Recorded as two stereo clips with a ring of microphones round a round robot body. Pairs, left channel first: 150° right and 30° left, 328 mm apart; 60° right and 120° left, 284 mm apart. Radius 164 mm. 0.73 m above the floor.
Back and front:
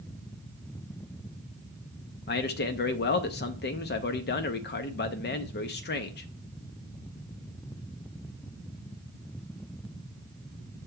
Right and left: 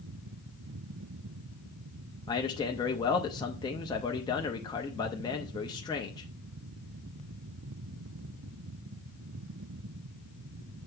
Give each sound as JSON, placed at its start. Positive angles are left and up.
{"t": 2.3, "sound": "a man speaking", "azimuth_deg": -125, "distance_m": 0.6}